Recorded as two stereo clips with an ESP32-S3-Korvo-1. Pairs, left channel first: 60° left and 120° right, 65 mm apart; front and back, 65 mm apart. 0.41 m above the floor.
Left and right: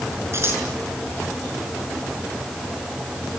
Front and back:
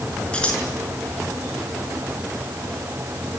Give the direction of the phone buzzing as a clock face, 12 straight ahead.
No phone buzzing in this recording.